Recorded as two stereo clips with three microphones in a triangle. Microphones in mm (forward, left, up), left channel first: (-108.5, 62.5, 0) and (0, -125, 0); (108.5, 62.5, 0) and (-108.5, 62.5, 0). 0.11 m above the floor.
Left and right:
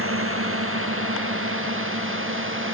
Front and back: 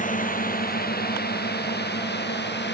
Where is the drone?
50° right; by 2.7 s 35° right.